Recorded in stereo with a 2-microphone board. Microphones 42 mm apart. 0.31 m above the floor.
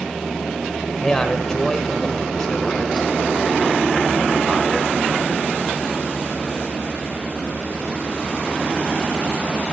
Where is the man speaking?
15° left (ahead or behind), 0.9 m.